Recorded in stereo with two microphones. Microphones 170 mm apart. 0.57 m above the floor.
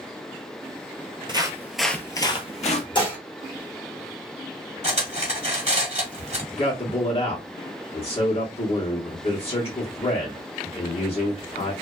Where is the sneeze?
No sneeze in this recording.